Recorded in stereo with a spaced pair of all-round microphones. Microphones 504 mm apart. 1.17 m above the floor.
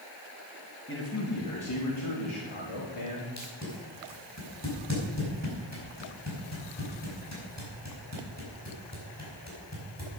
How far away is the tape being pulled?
About 4.5 m.